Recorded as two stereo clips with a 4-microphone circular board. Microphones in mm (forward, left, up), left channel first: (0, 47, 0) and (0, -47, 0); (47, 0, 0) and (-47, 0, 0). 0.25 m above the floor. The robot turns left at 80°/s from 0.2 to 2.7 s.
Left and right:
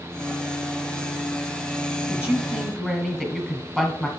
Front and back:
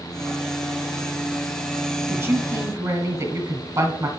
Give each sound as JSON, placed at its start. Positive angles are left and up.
{"t": 2.1, "sound": "a man speaking", "azimuth_deg": -140, "distance_m": 1.2}